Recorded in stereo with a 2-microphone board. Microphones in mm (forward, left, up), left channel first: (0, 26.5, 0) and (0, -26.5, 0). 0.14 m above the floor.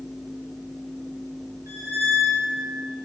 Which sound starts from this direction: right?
A squeak, at 1.7 s.